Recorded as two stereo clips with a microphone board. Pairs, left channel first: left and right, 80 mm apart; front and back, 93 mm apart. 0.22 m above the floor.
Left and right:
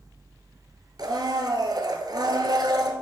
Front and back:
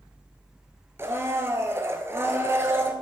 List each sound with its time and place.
1.0 s a blender: 120° right, 1.4 m